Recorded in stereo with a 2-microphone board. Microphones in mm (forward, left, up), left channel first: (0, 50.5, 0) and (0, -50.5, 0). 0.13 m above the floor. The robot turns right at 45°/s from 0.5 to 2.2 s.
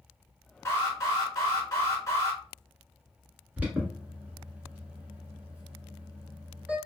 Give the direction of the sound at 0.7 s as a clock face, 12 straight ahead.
10 o'clock.